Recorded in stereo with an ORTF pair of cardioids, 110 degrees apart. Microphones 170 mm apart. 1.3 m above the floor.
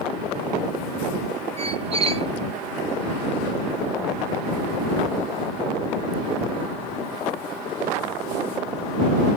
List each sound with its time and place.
1.6 s a squeak: 35° right